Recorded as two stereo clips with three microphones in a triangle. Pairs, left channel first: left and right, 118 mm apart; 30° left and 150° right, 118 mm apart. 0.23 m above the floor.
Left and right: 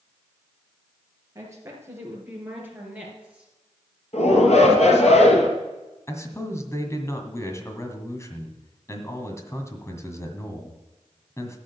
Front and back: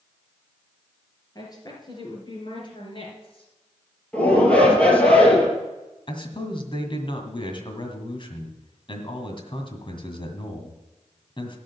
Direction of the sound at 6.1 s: 35° left.